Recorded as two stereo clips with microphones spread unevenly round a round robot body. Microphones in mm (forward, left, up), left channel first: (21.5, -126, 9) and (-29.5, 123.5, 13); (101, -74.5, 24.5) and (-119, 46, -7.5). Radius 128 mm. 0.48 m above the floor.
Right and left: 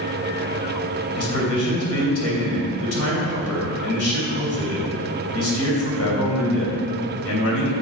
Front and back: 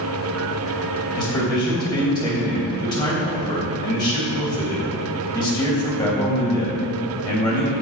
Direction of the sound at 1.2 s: 105° right.